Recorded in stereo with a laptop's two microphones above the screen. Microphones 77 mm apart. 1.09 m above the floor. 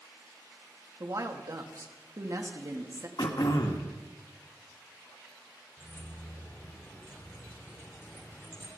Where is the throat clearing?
65° left (ahead or behind), 1.5 m.